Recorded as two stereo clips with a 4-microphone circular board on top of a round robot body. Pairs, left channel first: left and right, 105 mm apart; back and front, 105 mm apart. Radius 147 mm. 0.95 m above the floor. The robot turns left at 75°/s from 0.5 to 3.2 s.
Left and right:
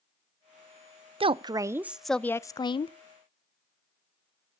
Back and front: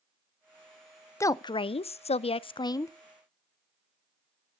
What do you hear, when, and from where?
1.2 s a woman speaking: 115° right, 0.5 m; by 2.9 s 115° left, 0.5 m